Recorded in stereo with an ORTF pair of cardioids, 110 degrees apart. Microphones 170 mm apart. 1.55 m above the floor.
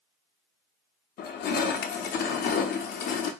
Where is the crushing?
60° left, 0.7 m.